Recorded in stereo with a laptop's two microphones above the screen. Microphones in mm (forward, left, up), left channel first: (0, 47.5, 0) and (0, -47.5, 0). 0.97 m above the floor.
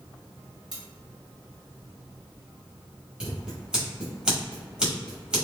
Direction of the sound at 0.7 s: 60° left (ahead or behind).